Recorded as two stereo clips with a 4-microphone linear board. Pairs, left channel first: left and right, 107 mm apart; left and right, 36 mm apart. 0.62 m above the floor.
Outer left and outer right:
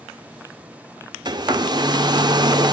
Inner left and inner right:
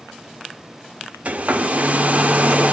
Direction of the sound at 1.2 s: 40° right (ahead or behind).